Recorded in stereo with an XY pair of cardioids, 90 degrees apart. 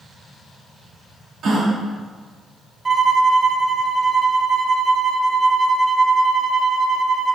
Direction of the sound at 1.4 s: 65° right.